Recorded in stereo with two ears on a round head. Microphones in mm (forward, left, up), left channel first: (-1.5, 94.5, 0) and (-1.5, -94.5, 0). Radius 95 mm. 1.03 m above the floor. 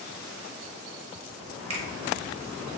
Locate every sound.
1.7 s a finger snap: 30° right (ahead or behind), 0.9 m